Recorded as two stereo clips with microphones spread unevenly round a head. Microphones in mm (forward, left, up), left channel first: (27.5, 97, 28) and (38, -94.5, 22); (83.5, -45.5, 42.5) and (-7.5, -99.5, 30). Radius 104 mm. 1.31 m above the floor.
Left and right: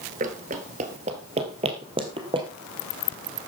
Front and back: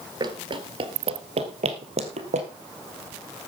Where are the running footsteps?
120° right, 1.6 m; by 2.5 s 155° right, 2.5 m.